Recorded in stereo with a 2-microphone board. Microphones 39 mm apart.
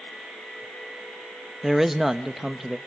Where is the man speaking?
5° right (ahead or behind), 0.8 m.